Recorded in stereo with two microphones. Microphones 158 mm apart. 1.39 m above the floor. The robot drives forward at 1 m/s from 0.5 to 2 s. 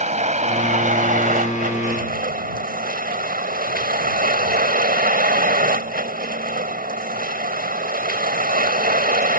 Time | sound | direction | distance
0.0 | a vehicle | 50° right (ahead or behind) | ?